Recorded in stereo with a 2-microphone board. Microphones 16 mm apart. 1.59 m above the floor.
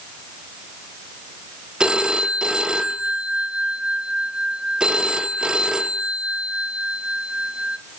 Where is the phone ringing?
60° right (ahead or behind), 1.4 m.